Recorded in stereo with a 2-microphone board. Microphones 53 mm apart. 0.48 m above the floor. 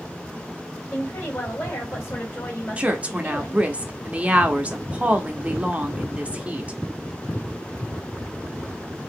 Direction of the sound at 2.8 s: 25° right (ahead or behind).